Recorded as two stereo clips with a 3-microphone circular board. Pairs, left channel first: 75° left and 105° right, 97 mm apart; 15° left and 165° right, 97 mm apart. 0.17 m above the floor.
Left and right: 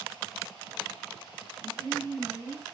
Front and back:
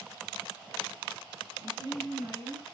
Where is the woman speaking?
140° right, 2 m.